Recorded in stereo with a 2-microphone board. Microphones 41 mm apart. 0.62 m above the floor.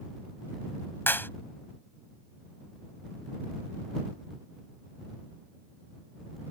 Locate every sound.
1.1 s a clap: 60° left (ahead or behind)